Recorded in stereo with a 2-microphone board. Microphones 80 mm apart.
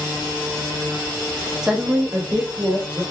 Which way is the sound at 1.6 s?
5° right (ahead or behind).